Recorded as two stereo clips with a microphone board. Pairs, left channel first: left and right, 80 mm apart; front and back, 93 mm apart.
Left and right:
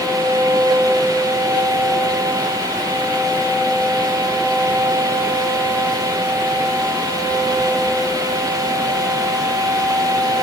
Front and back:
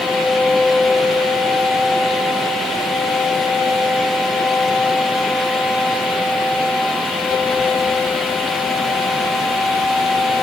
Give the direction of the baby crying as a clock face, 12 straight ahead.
No baby crying in this recording.